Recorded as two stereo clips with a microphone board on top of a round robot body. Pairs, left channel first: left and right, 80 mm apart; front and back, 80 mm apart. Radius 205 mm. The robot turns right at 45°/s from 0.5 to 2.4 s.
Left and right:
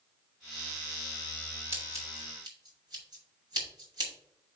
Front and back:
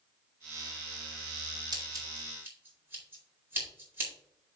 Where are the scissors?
150° right, 4 m; by 4.1 s 120° right, 4 m.